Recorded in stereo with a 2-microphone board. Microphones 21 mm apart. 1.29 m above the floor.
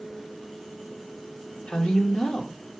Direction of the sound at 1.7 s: 80° left.